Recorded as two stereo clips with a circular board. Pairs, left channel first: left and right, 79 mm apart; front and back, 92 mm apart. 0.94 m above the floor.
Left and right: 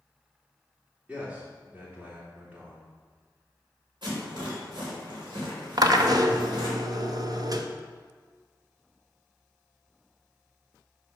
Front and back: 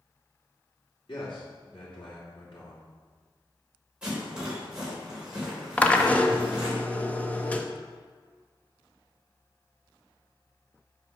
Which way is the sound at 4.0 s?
100° right.